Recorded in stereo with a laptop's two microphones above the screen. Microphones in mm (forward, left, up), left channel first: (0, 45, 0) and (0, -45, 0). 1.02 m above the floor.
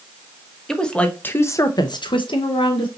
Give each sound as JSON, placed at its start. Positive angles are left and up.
{"t": 0.7, "sound": "a woman speaking", "side_deg": 5, "distance_m": 1.0}